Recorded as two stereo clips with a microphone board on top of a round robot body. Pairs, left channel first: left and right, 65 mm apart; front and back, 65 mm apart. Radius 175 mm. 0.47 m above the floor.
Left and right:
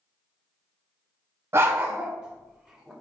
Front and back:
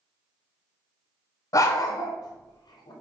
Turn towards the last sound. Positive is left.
turn(degrees=0)